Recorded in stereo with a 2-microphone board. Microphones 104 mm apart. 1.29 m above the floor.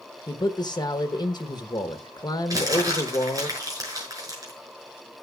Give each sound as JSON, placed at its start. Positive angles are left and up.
{"t": 0.3, "sound": "a man speaking", "side_deg": 45, "distance_m": 1.0}
{"t": 2.5, "sound": "crumpling", "side_deg": -35, "distance_m": 6.0}